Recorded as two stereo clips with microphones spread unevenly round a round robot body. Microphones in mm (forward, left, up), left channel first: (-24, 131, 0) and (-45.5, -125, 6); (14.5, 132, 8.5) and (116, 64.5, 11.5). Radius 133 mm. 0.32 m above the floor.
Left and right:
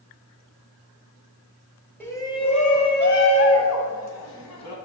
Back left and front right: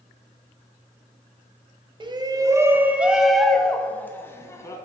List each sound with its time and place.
2.0 s a shout: 5° left, 1.4 m; by 4.8 s 80° left, 2.5 m